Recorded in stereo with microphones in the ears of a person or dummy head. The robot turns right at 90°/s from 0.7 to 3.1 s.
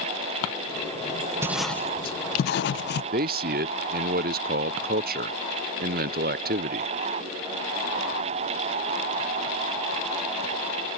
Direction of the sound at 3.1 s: 40° right (ahead or behind).